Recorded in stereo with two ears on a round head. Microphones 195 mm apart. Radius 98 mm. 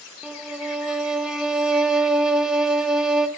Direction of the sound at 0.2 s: 5° right (ahead or behind).